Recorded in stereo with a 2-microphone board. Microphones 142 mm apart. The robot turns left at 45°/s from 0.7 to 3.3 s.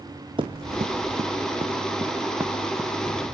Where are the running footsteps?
35° right (ahead or behind), 0.8 m; by 3.2 s 15° left (ahead or behind), 1.8 m.